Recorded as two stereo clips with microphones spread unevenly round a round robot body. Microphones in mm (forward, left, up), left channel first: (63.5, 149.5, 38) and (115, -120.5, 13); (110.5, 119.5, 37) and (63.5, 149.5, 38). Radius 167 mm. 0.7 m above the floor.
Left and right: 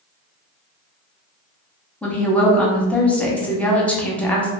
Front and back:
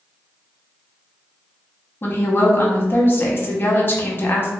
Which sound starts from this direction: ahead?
A woman speaking, at 2.0 s.